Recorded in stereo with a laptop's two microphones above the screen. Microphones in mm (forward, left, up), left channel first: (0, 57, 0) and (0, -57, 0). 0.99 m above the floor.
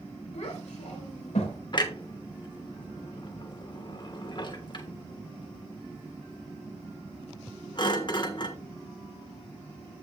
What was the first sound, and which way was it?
A child speaking, 80° left.